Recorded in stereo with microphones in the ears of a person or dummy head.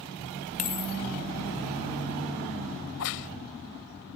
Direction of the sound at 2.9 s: 70° left (ahead or behind).